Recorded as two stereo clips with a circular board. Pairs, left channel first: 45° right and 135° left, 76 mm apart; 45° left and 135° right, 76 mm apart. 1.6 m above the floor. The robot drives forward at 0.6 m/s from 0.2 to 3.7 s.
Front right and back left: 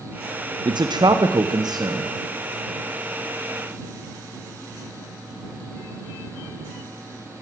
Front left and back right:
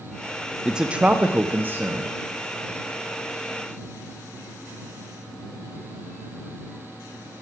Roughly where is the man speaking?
Behind left.